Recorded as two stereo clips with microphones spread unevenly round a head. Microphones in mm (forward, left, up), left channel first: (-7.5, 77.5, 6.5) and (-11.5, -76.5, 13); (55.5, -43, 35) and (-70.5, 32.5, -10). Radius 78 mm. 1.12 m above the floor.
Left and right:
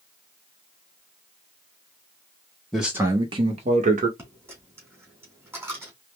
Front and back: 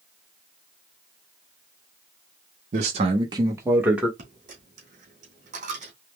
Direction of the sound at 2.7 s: 175° left.